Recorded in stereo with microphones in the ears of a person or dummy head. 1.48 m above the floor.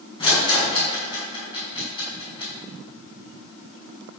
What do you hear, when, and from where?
0.2 s a rattle: 25° left (ahead or behind), 6 m